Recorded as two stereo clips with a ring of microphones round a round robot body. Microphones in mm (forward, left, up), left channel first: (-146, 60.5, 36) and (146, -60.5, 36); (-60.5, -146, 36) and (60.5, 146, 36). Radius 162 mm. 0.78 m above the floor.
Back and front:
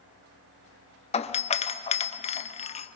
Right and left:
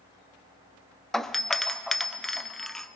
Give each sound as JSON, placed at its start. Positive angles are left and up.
{"t": 1.1, "sound": "a doorbell", "azimuth_deg": 160, "distance_m": 0.8}